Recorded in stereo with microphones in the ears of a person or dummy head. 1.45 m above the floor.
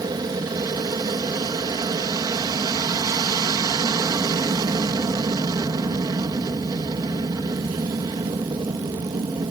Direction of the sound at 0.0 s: 20° right (ahead or behind).